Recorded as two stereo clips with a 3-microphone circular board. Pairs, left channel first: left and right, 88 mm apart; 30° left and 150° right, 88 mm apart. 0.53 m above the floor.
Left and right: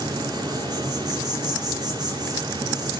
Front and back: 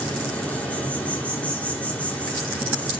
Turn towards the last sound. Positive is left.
turn(degrees=-45)